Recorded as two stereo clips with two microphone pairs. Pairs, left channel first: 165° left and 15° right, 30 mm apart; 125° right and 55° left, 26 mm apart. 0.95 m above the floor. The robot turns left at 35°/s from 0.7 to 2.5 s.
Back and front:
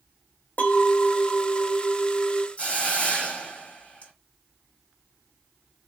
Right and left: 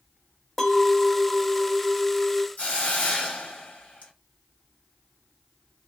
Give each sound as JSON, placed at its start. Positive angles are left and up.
{"t": 0.6, "sound": "a clink", "azimuth_deg": 150, "distance_m": 0.8}
{"t": 2.6, "sound": "a hiss", "azimuth_deg": -150, "distance_m": 1.4}